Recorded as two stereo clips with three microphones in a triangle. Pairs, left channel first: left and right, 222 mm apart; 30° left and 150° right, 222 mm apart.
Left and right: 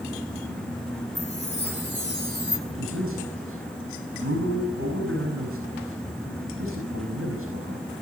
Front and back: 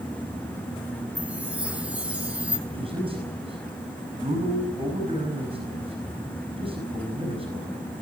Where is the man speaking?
85° right, 4.5 m.